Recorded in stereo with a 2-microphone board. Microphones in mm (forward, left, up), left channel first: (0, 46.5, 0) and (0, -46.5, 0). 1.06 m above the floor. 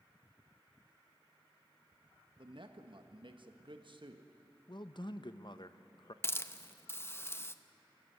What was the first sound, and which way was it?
A man speaking, 60° right (ahead or behind).